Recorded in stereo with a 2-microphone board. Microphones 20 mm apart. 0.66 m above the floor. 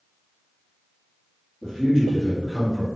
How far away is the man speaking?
About 1.4 m.